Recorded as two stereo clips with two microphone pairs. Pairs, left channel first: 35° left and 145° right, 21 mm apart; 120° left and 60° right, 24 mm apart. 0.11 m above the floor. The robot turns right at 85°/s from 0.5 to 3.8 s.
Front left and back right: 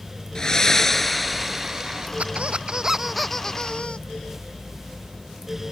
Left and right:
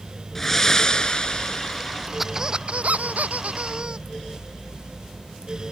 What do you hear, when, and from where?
0.3 s breathing: 60° left; by 2.1 s 165° right
2.2 s a squeak: 145° right; by 4.0 s 5° right